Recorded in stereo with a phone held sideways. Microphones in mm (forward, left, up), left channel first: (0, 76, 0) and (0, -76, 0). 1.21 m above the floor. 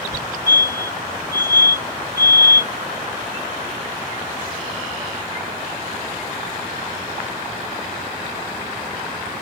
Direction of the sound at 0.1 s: 25° right (ahead or behind).